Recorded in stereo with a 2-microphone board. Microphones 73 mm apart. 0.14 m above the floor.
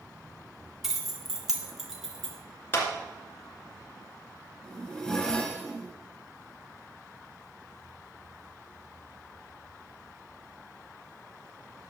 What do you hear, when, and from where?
0.8 s keys jangling: 5° right (ahead or behind), 0.9 m
2.7 s a clap: 35° left (ahead or behind), 1.9 m
4.6 s a zipper: 10° left (ahead or behind), 1.5 m